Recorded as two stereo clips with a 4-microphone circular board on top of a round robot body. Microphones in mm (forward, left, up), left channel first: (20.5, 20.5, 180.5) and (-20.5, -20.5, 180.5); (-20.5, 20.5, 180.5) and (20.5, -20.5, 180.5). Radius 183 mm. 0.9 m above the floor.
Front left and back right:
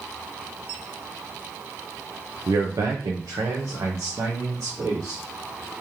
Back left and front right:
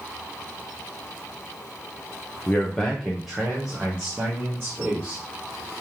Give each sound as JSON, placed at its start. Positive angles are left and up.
{"t": 2.5, "sound": "a man speaking", "azimuth_deg": -160, "distance_m": 0.8}